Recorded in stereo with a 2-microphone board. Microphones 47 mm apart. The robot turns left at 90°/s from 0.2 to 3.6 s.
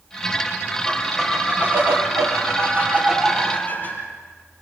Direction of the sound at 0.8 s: 35° left.